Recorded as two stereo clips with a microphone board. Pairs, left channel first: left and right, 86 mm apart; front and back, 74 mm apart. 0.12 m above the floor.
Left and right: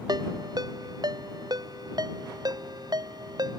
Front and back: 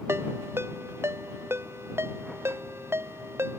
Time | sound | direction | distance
0.1 | a ringtone | 125° right | ?